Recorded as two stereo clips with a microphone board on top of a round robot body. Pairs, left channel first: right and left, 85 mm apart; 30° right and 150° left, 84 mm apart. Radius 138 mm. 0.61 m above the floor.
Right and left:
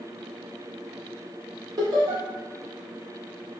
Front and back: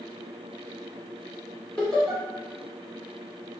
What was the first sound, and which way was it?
Laughter, 50° left.